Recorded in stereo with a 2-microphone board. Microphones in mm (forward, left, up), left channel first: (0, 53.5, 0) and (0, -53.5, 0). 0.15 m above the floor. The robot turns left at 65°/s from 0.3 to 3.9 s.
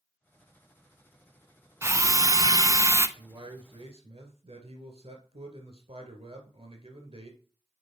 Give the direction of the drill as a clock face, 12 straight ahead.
2 o'clock.